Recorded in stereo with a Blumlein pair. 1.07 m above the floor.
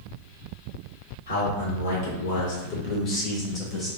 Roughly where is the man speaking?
Ahead left.